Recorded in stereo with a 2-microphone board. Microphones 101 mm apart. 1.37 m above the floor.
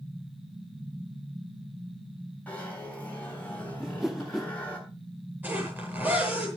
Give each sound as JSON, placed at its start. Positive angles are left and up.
{"t": 2.5, "sound": "a zipper", "side_deg": 15, "distance_m": 7.0}
{"t": 3.8, "sound": "a whoosh", "side_deg": -5, "distance_m": 0.6}
{"t": 5.4, "sound": "a zipper", "side_deg": -15, "distance_m": 8.5}